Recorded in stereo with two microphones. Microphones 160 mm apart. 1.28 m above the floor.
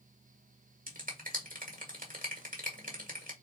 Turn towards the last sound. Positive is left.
turn(degrees=-60)  # may be behind; listen again after turning